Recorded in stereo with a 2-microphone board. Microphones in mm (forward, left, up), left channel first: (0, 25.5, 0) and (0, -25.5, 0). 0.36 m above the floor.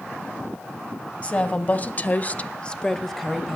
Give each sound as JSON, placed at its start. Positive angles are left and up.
{"t": 1.2, "sound": "a woman speaking", "side_deg": 30, "distance_m": 2.0}